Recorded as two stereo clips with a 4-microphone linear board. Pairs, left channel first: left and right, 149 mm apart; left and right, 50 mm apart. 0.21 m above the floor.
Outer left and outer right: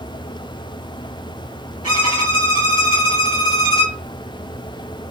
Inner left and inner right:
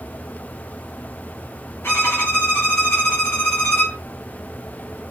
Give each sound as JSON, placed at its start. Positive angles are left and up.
{"t": 1.8, "sound": "a violin", "side_deg": 60, "distance_m": 3.0}